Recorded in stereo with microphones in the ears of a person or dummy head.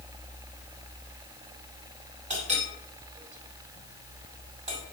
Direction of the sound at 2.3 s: 40° right (ahead or behind).